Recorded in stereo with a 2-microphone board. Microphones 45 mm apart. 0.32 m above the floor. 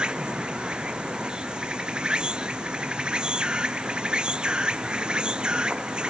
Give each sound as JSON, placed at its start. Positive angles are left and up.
{"t": 0.0, "sound": "an insect", "side_deg": -20}